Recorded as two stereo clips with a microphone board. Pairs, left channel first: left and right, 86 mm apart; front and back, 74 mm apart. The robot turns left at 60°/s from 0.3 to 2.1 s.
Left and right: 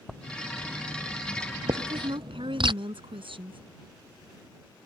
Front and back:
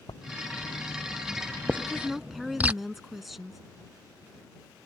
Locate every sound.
0.1 s writing: straight ahead; by 2.7 s 110° right
1.7 s a woman speaking: 70° right; by 3.6 s 90° right